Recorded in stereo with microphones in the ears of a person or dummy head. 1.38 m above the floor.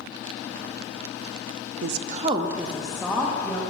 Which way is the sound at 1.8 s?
75° right (ahead or behind).